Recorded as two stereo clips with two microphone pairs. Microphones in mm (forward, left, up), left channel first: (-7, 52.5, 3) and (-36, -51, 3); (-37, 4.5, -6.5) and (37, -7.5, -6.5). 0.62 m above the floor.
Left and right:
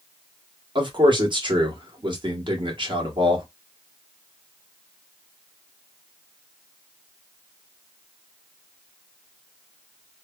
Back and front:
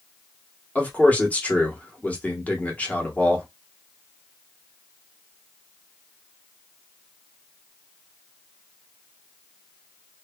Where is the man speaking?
125° right, 1.1 m.